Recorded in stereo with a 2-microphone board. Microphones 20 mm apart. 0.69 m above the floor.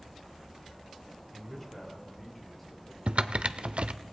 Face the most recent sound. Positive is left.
turn(degrees=-65)  # may be behind; listen again after turning